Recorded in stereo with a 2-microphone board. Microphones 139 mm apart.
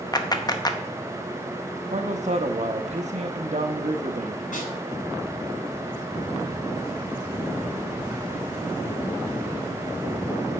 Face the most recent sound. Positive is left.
turn(degrees=65)  # may be behind; listen again after turning